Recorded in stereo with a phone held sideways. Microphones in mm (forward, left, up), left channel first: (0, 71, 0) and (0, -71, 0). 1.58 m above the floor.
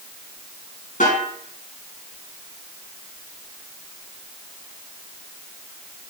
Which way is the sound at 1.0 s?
65° left (ahead or behind).